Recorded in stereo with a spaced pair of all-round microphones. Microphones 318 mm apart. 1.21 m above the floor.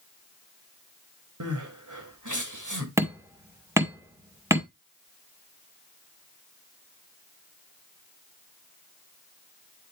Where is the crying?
70° right (ahead or behind), 2 m.